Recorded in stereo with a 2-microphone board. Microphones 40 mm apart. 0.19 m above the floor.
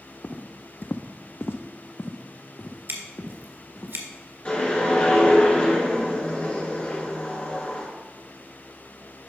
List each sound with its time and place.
0.2 s footsteps: 35° left (ahead or behind), 0.8 m; by 3.9 s 45° left (ahead or behind), 1.8 m
2.9 s scissors: 65° right (ahead or behind), 1.7 m
4.5 s a whoosh: 30° left (ahead or behind), 2.5 m